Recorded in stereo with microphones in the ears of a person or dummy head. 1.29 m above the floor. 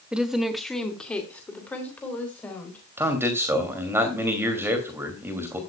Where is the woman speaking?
5° right (ahead or behind), 1.1 m; by 2.8 s 5° left (ahead or behind), 4 m.